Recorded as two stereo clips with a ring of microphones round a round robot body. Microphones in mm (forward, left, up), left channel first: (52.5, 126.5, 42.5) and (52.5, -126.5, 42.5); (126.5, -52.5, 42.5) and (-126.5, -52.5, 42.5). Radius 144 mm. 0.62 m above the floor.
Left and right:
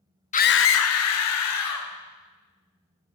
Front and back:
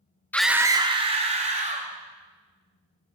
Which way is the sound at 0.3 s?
75° left.